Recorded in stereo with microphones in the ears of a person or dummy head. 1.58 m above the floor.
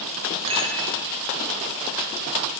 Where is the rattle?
30° right (ahead or behind), 1.2 m.